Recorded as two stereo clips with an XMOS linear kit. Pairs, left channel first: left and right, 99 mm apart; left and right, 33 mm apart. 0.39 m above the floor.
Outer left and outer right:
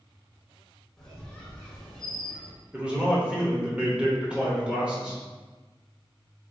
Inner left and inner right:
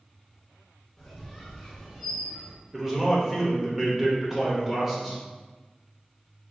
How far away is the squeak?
About 0.8 m.